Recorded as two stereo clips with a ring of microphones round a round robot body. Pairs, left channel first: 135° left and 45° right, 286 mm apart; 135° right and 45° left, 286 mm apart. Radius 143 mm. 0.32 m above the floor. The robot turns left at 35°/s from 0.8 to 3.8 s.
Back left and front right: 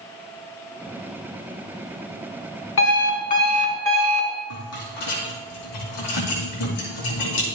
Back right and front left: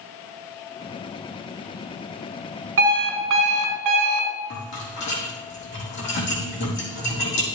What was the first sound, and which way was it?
An alarm clock, 90° left.